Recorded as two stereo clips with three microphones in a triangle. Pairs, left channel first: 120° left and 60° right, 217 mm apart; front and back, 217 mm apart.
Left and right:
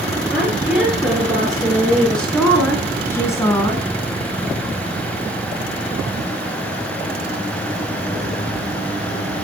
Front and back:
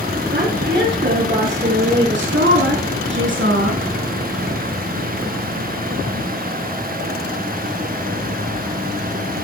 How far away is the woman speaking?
About 5.5 m.